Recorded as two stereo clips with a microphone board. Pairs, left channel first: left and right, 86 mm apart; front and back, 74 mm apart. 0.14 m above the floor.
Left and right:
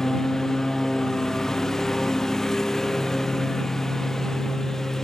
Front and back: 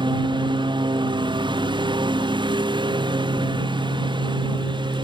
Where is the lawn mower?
175° left.